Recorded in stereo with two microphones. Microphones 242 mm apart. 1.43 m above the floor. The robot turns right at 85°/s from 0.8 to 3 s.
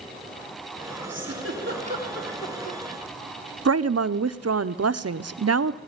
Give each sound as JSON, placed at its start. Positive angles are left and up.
{"t": 1.1, "sound": "a giggle", "side_deg": -85, "distance_m": 3.5}
{"t": 3.6, "sound": "a woman speaking", "side_deg": -75, "distance_m": 0.7}